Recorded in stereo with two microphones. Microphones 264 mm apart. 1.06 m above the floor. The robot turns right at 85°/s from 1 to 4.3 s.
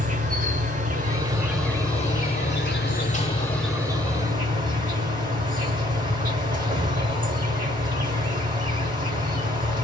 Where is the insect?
45° right, 0.9 m; by 9.8 s 125° right, 0.9 m.